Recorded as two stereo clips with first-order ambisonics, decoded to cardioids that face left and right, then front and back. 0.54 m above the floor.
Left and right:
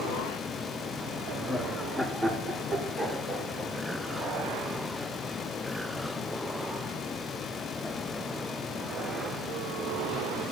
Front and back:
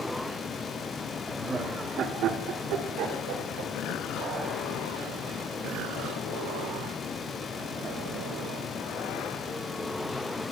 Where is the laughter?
105° left, 0.7 m; by 4.6 s 165° right, 2.5 m.